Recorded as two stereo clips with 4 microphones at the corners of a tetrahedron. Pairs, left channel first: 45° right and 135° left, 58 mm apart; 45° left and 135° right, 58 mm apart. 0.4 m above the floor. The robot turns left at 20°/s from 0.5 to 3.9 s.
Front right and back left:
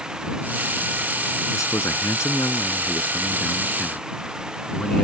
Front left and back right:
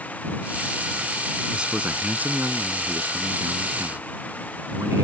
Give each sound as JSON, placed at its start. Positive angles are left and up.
{"t": 1.5, "sound": "a man speaking", "azimuth_deg": -60}